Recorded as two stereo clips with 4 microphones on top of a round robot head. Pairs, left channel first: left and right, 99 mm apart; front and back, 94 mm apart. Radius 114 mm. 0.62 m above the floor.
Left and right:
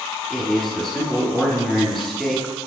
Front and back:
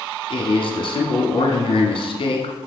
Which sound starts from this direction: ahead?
A man speaking, at 0.3 s.